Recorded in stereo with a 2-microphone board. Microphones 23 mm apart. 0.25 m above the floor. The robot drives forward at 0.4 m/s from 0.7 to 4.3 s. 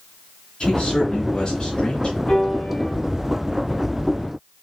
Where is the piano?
50° left (ahead or behind), 2.5 m.